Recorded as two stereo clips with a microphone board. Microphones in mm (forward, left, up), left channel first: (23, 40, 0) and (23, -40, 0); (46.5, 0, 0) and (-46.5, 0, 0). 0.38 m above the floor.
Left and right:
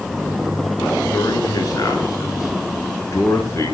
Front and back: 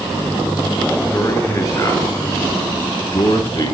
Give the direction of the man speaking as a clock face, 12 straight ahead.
10 o'clock.